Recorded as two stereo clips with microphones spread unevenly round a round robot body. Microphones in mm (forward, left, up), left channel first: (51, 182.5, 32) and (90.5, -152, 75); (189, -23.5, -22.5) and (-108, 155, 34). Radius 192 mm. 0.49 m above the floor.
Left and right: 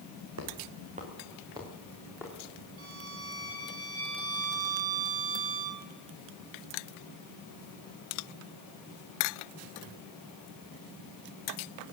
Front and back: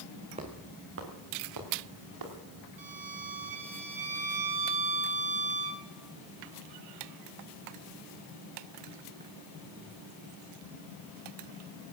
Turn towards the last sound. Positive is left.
turn(degrees=-135)